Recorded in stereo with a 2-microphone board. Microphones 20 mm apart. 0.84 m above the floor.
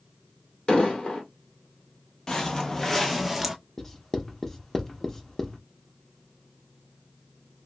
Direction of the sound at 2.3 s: 35° left (ahead or behind).